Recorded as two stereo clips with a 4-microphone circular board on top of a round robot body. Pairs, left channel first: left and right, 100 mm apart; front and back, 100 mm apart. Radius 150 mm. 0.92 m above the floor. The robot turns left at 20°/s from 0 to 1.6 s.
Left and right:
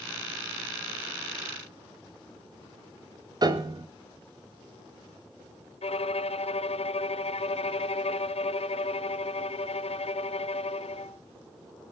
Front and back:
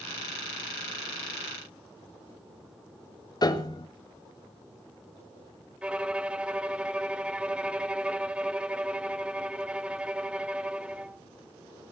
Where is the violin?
100° left, 1.0 m.